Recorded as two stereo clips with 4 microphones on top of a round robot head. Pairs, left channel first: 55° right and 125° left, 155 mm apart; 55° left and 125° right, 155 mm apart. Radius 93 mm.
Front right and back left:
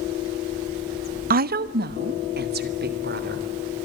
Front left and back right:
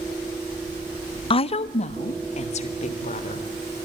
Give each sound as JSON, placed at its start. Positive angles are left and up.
{"t": 1.3, "sound": "a woman speaking", "azimuth_deg": 110, "distance_m": 0.6}